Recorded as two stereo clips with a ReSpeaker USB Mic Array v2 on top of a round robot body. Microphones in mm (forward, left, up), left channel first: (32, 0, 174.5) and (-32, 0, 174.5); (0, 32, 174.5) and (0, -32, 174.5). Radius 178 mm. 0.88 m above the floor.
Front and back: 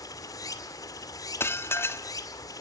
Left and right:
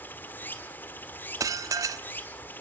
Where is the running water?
30° left, 1.9 m.